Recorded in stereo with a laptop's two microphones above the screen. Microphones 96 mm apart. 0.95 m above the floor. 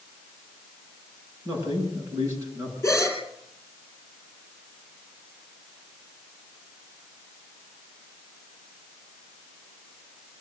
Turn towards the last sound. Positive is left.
turn(degrees=25)  # may be behind; listen again after turning